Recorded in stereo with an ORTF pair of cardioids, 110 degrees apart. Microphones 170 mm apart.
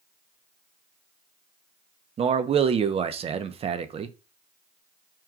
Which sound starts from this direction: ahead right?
A man speaking, at 2.2 s.